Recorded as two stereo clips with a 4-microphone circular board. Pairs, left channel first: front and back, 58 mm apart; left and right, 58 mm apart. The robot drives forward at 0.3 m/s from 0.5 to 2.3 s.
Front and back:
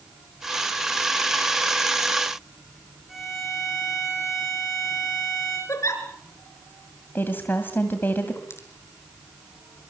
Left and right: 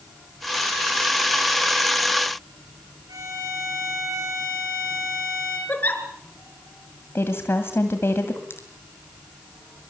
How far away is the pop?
About 5 m.